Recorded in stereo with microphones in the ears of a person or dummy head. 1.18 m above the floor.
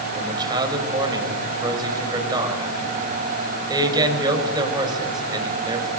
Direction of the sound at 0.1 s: 20° right (ahead or behind).